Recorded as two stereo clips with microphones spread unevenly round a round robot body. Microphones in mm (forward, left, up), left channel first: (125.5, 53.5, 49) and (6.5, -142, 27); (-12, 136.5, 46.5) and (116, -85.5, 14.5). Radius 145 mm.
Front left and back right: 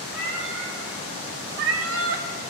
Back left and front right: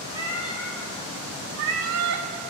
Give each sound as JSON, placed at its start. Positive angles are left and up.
{"t": 0.1, "sound": "a cat meowing", "azimuth_deg": -170, "distance_m": 1.0}